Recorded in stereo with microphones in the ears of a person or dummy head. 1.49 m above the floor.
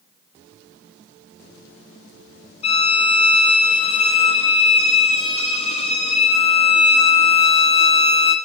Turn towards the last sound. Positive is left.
turn(degrees=30)  # may be behind; listen again after turning